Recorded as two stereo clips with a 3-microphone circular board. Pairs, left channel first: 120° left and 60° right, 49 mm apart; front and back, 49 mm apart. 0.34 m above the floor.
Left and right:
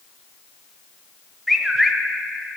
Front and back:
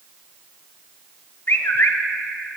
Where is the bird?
25° left, 0.8 m.